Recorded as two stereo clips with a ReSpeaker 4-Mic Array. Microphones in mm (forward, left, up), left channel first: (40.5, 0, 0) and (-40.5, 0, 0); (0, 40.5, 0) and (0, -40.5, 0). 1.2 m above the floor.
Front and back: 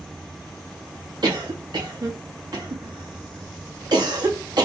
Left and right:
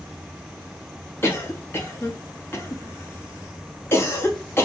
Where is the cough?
150° left, 1.7 m.